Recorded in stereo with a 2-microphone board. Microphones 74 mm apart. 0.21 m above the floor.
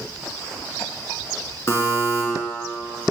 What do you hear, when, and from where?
1.7 s a buzzer: 40° left (ahead or behind), 1.6 m